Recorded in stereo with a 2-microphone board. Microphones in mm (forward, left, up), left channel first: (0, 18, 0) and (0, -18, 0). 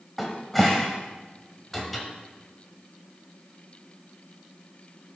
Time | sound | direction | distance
0.2 | a cupboard door | centre (ahead or behind) | 1.0 m